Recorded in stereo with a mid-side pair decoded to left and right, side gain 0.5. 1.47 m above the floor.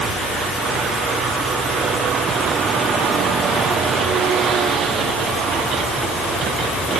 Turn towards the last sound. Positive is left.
No sound to turn to.